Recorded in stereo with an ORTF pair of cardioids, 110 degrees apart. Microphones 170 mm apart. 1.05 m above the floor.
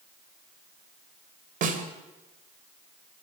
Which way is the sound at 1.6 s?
50° right.